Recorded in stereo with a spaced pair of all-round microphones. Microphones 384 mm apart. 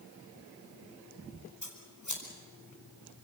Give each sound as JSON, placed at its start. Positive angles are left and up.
{"t": 1.6, "sound": "scissors", "side_deg": 50, "distance_m": 4.5}